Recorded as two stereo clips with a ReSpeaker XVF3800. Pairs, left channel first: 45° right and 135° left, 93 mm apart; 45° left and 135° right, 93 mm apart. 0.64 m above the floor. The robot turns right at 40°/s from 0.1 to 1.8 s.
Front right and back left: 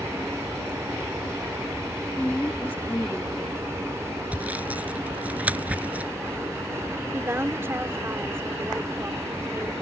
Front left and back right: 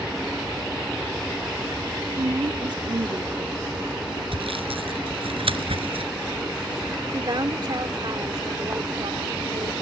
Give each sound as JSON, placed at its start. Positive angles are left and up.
{"t": 2.2, "sound": "a woman speaking", "azimuth_deg": -110}
{"t": 4.3, "sound": "sawing", "azimuth_deg": -150}
{"t": 7.1, "sound": "a woman speaking", "azimuth_deg": -165}